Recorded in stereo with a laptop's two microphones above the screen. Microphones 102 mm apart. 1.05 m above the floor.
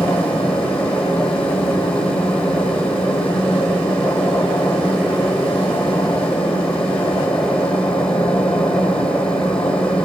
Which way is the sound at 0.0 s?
10° left (ahead or behind).